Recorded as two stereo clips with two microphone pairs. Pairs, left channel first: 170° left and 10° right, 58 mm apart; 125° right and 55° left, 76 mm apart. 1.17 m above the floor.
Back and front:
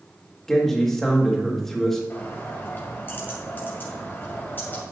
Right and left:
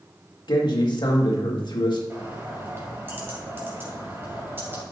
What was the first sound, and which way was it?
A man speaking, 110° right.